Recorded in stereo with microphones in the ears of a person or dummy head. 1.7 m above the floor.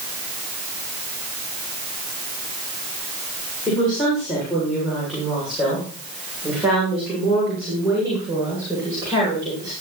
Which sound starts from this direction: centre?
A woman speaking, at 3.7 s.